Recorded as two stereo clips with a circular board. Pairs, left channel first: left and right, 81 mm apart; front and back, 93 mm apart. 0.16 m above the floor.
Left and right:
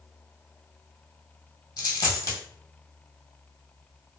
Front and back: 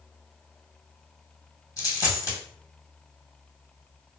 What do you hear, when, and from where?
1.8 s a dropped coin: 50° left, 1.1 m